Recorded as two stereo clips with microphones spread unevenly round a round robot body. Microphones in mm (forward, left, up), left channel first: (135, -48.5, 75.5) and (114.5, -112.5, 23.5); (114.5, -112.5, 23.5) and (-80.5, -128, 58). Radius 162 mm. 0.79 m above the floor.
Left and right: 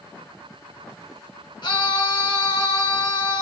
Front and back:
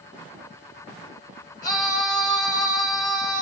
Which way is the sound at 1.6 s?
60° left.